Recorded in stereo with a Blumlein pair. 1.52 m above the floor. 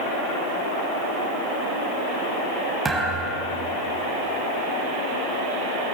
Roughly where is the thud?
Ahead.